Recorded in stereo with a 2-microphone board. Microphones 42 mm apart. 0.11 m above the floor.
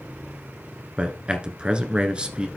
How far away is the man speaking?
About 1.2 m.